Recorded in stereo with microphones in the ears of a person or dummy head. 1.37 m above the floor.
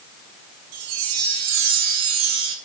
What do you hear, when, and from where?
0.7 s a chime: 85° right, 3 m